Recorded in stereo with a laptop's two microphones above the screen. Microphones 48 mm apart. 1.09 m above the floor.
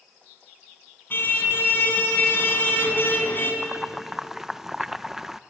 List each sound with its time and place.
1.1 s a car horn: 50° left (ahead or behind), 4.5 m
3.6 s boiling: 10° right (ahead or behind), 0.6 m